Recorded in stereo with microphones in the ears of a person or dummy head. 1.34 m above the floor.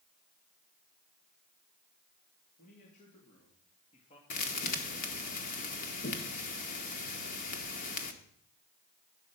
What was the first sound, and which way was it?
A man speaking, 45° left (ahead or behind).